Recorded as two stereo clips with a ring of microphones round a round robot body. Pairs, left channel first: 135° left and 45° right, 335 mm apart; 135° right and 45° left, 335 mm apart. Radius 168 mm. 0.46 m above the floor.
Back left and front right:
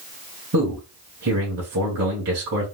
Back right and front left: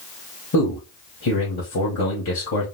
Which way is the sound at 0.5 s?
90° right.